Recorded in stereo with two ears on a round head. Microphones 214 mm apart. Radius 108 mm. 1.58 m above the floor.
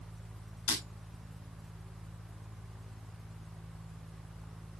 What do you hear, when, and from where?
0.7 s breaking glass: 65° left (ahead or behind), 4 m